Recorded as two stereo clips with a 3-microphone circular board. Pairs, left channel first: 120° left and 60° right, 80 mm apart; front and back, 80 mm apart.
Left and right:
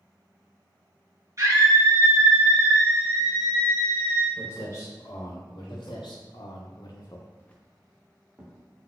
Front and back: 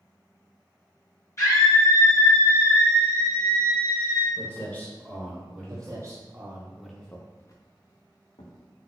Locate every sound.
1.4 s a scream: 35° right, 1.8 m; by 4.3 s 80° left, 1.9 m
4.4 s footsteps: 65° left, 1.6 m; by 6.0 s 105° left, 1.4 m
5.7 s footsteps: 135° left, 1.2 m; by 8.9 s 5° left, 1.6 m